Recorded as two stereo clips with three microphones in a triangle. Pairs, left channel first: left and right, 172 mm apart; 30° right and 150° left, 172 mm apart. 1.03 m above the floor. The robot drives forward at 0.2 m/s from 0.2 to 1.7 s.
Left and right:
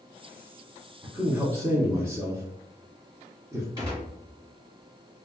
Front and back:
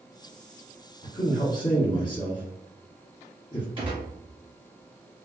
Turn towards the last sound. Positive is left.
turn(degrees=-155)